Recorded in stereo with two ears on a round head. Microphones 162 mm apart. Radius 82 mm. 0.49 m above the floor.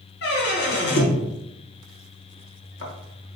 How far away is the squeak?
About 1.0 m.